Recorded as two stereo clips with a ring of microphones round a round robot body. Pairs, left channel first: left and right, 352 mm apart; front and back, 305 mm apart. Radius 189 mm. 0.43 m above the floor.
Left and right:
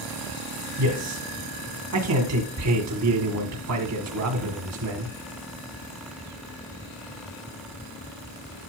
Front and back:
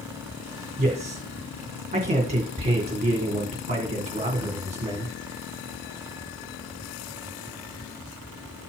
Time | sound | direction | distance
0.8 | a man speaking | 115° right | 2 m